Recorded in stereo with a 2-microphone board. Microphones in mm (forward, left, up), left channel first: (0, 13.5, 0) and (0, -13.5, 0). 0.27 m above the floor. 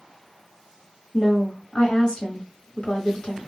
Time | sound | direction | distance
1.1 | a woman speaking | 45° left (ahead or behind) | 1.7 m